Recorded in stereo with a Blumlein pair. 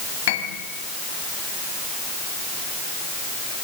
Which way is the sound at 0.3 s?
50° left.